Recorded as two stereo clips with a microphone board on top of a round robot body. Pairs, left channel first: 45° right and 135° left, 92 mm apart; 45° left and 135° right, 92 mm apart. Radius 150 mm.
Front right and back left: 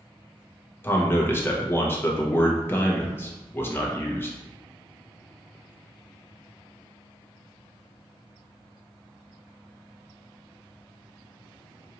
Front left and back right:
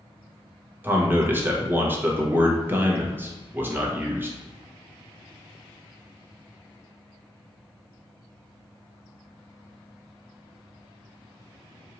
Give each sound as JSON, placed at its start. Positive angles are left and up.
{"t": 0.8, "sound": "a man speaking", "azimuth_deg": -85, "distance_m": 1.1}